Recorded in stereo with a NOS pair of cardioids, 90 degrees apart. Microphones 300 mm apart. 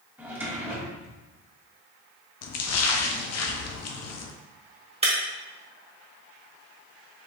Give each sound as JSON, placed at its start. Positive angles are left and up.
{"t": 0.2, "sound": "a drawer", "azimuth_deg": -5, "distance_m": 1.9}
{"t": 2.4, "sound": "a splash", "azimuth_deg": 55, "distance_m": 0.7}
{"t": 5.0, "sound": "breaking glass", "azimuth_deg": -20, "distance_m": 1.7}